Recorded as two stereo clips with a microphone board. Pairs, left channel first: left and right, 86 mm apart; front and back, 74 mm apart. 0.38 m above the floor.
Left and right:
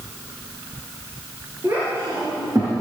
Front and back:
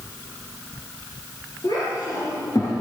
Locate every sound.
1.6 s a child speaking: 30° right, 5 m; by 2.7 s 40° right, 4.5 m